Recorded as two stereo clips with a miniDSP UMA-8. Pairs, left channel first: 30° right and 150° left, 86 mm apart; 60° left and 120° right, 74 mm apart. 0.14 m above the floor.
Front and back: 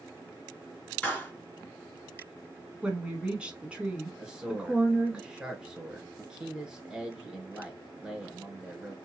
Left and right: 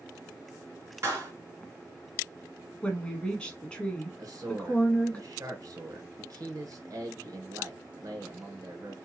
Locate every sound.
1.0 s a clap: 90° right, 1.8 m
2.8 s a woman speaking: 105° left, 1.0 m
4.2 s a man speaking: 130° right, 1.6 m